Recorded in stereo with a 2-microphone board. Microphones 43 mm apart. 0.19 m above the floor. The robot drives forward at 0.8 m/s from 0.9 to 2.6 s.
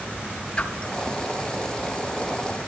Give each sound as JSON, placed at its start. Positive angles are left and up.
{"t": 0.6, "sound": "a whoosh", "side_deg": 25, "distance_m": 1.3}